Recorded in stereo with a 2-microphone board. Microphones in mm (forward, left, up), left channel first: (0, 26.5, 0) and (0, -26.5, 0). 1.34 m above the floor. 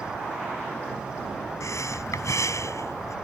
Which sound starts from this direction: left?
Breathing, at 1.6 s.